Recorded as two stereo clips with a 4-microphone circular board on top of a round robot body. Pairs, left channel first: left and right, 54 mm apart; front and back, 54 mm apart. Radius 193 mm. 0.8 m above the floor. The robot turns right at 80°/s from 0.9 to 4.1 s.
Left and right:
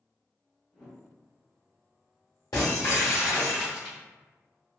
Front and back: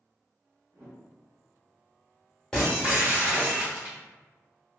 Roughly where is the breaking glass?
Left.